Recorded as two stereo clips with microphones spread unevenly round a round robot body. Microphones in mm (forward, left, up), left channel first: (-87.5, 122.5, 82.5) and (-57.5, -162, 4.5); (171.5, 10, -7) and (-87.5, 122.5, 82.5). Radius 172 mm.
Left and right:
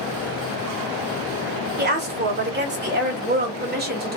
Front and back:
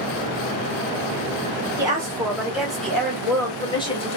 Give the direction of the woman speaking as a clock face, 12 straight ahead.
4 o'clock.